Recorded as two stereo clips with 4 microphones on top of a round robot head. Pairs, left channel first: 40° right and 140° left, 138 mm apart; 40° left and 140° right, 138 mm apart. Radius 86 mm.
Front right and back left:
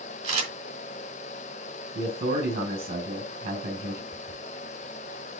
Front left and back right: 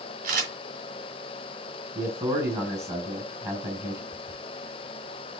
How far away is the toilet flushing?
About 2 m.